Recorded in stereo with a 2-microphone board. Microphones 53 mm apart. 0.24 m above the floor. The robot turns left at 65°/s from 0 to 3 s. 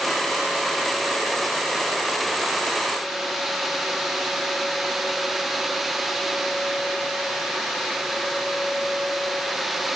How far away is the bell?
I don't hear a bell.